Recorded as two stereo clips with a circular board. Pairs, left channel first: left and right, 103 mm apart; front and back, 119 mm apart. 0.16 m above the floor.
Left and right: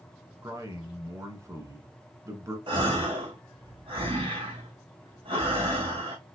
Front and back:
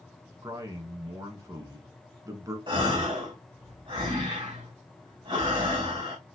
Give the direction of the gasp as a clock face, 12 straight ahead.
4 o'clock.